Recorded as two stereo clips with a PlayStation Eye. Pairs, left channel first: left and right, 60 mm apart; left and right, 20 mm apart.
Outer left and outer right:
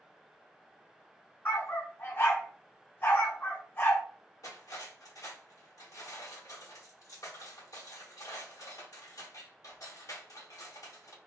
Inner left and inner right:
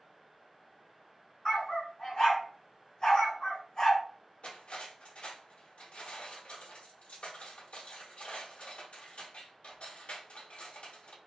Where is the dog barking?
40° left (ahead or behind), 1.8 m.